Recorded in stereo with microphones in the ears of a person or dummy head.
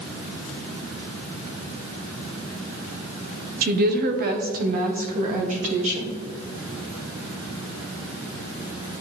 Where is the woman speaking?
45° right (ahead or behind), 0.8 m; by 6.2 s 35° right (ahead or behind), 1.8 m.